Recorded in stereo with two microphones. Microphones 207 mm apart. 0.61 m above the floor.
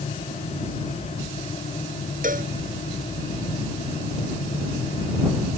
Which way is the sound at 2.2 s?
40° right (ahead or behind).